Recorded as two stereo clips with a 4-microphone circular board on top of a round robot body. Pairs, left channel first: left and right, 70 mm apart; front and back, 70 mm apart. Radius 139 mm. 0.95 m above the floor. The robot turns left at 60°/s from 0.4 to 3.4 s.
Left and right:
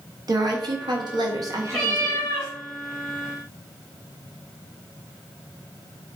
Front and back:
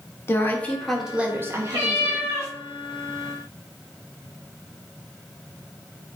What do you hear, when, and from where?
0.3 s a woman speaking: 55° right, 1.6 m; by 2.4 s 175° right, 1.6 m
1.7 s a cat meowing: straight behind, 3 m; by 2.5 s 135° left, 3 m